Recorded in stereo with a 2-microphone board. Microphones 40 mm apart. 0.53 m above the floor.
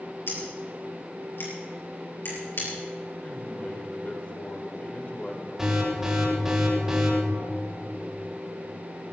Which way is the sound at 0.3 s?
70° left (ahead or behind).